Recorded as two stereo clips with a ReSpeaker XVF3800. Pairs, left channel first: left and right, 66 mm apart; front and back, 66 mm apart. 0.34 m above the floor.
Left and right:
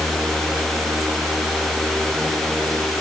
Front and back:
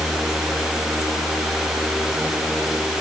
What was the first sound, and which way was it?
Only background noise.